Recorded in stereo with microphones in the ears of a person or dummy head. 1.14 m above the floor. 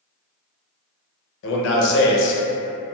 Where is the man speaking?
65° left (ahead or behind), 0.7 m.